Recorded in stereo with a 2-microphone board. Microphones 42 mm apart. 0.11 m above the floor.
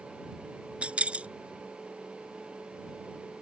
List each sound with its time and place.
0.8 s keys jangling: 30° right (ahead or behind)